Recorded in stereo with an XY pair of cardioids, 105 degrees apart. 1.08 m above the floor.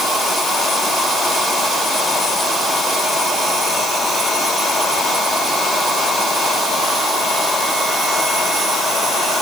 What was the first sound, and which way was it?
Only background noise.